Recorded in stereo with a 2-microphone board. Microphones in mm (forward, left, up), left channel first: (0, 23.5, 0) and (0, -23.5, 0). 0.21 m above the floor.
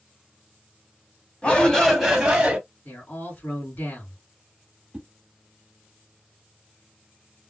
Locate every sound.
1.4 s a shout: 30° left (ahead or behind), 1.3 m; by 2.6 s 20° right (ahead or behind), 1.5 m
2.9 s a man speaking: 40° left (ahead or behind), 2 m
4.9 s a whoosh: 25° right (ahead or behind), 0.9 m